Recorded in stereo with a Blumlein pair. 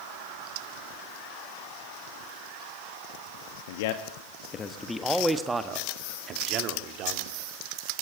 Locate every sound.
3.7 s a man speaking: 55° left, 1.5 m; by 7.4 s 40° right, 3 m